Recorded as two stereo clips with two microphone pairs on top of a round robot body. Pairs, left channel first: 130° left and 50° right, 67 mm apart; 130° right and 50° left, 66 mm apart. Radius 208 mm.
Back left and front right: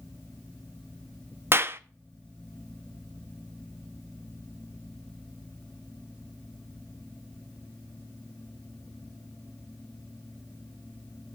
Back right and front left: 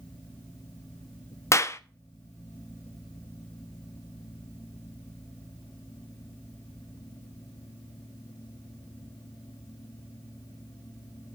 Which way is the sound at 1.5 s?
110° right.